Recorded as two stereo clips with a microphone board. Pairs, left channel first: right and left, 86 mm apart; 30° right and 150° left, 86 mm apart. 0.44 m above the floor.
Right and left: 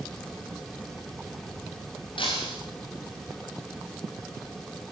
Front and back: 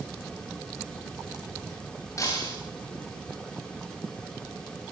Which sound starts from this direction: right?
Breaking glass, at 2.2 s.